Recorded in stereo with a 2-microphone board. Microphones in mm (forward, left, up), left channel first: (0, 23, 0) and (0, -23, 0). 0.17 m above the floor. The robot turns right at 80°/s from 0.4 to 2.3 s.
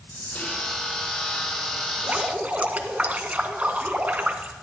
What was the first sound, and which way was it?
Whispering, 40° left (ahead or behind).